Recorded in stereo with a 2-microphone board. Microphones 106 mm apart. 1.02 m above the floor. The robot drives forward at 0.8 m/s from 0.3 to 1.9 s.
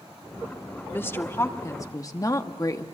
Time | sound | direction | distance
0.9 | a woman speaking | 20° left (ahead or behind) | 2 m